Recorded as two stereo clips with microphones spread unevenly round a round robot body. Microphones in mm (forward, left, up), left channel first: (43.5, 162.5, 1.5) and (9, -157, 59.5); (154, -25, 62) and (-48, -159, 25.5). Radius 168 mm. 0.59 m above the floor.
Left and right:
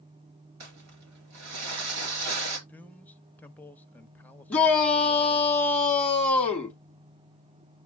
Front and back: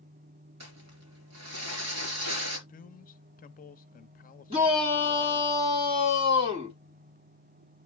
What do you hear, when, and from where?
0.6 s crumpling: 140° right, 4 m
2.7 s a man speaking: 30° left, 0.8 m
4.5 s a shout: 160° left, 1.6 m